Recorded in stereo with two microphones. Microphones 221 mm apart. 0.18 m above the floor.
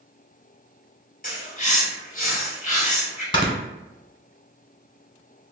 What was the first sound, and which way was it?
A bird, 40° left (ahead or behind).